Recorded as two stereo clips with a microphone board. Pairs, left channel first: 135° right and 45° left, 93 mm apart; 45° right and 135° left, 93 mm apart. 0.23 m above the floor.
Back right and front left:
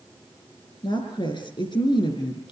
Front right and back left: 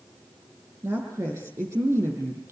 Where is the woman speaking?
160° right, 8 m.